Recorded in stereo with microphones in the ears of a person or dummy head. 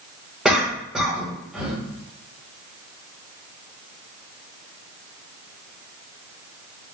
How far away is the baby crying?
I don't hear a baby crying.